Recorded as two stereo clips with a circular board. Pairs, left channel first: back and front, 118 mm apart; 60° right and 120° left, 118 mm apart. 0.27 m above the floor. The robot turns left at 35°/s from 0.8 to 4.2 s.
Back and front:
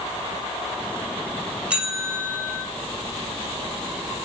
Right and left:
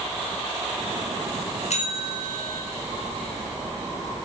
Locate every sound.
1.7 s a bell: 80° right, 6 m; by 2.6 s 110° right, 6 m